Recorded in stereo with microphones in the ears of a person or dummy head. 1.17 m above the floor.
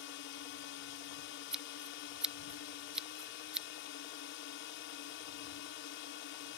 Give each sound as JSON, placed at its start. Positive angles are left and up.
{"t": 0.0, "sound": "a drone", "side_deg": 55}
{"t": 1.5, "sound": "scissors", "side_deg": 5}